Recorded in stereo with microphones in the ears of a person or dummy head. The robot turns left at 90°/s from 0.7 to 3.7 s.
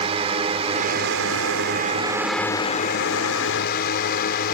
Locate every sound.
0.0 s a drone: 30° right; by 4.6 s 60° left